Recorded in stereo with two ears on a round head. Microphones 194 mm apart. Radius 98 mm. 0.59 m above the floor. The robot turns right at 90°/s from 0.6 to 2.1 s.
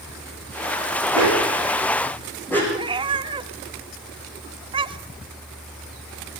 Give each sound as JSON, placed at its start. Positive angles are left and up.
{"t": 1.1, "sound": "a dog barking", "side_deg": -80, "distance_m": 8.0}
{"t": 2.7, "sound": "a cat meowing", "side_deg": -25, "distance_m": 1.3}